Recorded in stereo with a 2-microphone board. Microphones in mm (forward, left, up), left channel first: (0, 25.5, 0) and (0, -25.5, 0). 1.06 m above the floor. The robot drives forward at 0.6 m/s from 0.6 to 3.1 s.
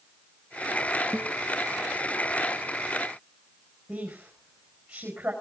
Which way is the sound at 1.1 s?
20° right (ahead or behind).